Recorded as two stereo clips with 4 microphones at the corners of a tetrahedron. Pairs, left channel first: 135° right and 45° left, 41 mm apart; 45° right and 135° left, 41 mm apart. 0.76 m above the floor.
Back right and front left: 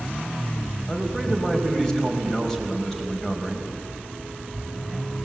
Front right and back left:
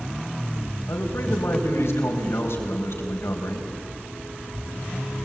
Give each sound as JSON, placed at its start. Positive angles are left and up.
{"t": 0.9, "sound": "a man speaking", "azimuth_deg": -55, "distance_m": 4.5}